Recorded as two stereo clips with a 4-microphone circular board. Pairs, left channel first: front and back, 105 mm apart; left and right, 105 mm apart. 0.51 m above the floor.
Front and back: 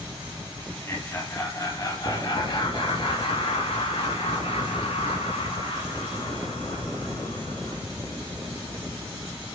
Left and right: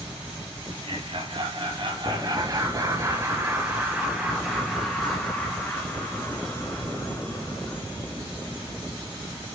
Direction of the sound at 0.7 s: 65° right.